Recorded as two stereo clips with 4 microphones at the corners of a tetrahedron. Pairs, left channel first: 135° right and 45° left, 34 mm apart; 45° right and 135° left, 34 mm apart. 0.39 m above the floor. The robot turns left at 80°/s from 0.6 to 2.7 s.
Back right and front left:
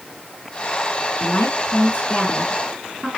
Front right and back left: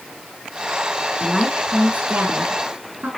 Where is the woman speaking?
115° right, 4 m; by 3.1 s 125° left, 4 m.